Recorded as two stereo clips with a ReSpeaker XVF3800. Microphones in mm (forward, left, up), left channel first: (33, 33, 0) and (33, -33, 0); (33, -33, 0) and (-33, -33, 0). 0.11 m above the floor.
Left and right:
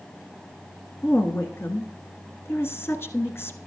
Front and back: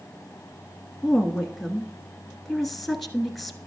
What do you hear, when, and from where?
1.0 s a woman speaking: 90° left, 1.2 m